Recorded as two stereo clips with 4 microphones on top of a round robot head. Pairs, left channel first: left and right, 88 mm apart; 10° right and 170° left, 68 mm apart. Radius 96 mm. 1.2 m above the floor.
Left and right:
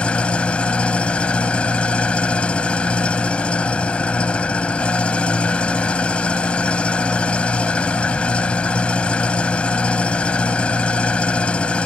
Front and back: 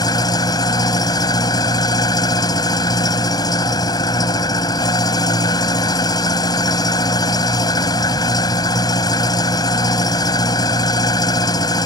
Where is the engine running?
10° left.